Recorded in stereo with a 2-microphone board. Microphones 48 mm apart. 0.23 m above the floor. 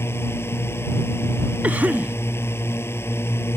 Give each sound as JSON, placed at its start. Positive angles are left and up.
{"t": 0.0, "sound": "a drone", "side_deg": 55}
{"t": 1.6, "sound": "a cough", "side_deg": -35}